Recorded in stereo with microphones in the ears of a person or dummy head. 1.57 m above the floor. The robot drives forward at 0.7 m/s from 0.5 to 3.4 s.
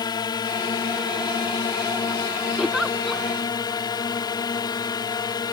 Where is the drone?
20° left (ahead or behind).